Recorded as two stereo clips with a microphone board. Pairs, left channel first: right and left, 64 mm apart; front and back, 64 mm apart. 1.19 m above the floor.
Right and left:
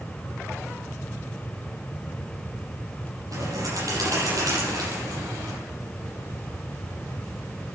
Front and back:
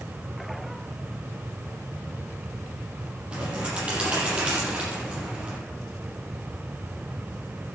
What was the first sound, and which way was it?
A bird, 110° left.